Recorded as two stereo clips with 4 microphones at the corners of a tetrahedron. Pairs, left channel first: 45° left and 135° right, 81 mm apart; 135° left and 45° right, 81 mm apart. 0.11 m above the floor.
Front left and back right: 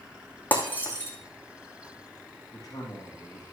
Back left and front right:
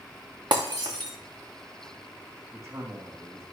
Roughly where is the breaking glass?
Ahead.